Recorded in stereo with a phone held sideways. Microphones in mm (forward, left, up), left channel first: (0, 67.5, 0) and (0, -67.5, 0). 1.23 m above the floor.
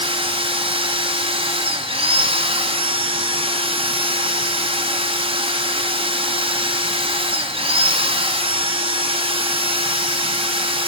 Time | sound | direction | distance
0.0 | a machine running | 40° right (ahead or behind) | 3 m